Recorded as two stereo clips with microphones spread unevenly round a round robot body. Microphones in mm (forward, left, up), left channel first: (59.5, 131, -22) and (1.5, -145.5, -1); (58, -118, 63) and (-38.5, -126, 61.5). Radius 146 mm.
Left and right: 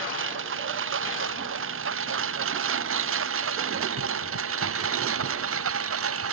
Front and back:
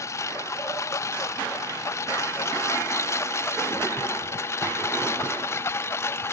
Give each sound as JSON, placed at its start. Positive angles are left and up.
{"t": 0.0, "sound": "a lawn mower", "azimuth_deg": -55}